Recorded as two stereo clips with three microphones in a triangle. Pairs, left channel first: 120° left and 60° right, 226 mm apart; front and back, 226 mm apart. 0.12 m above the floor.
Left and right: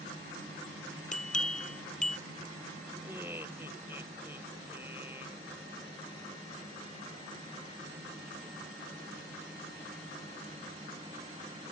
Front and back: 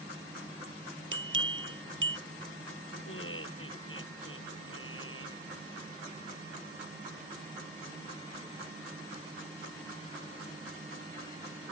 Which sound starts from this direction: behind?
A bell, at 1.1 s.